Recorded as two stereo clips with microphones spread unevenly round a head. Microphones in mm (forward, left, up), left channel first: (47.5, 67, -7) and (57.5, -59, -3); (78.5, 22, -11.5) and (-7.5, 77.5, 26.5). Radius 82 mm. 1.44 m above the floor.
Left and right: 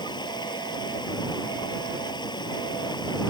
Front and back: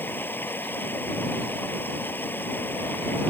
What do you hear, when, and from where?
0.0 s running water: 40° left